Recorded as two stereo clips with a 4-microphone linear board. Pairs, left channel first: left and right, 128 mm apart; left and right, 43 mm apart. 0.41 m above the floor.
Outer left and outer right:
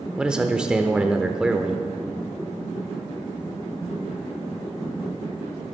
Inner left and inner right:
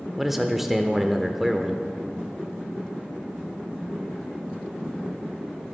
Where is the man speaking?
5° right (ahead or behind), 0.8 m.